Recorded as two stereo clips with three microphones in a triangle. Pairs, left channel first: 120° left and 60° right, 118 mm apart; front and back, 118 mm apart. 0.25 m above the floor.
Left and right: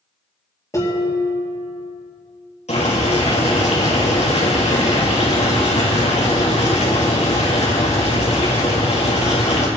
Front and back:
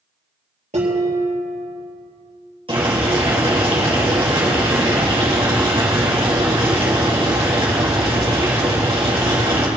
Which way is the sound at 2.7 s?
140° left.